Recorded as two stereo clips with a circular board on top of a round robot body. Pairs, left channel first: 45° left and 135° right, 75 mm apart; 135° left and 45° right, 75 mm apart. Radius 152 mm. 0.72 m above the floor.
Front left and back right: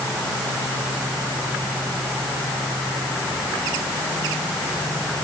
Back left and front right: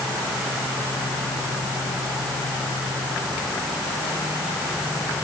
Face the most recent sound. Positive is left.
No sound to turn to.